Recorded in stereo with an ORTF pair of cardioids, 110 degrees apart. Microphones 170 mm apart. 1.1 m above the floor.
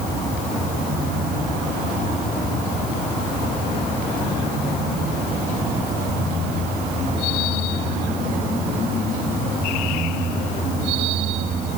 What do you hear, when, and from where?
Only background noise.